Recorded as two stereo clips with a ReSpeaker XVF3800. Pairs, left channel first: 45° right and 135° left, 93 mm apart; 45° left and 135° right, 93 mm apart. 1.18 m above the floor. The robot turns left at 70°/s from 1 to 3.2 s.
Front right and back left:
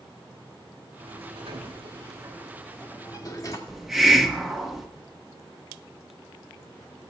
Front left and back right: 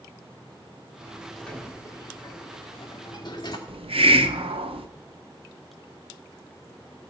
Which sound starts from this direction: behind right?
A hiss, at 3.7 s.